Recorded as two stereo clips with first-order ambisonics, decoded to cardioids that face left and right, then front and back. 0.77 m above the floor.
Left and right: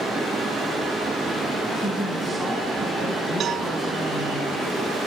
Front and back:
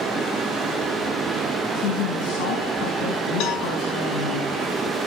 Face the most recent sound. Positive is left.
turn(degrees=-30)